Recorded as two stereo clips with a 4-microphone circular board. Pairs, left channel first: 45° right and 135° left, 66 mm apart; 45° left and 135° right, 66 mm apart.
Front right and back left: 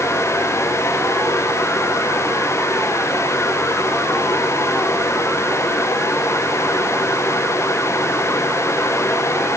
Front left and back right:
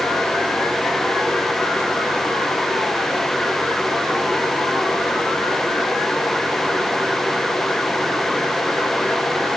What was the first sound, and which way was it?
Only background noise.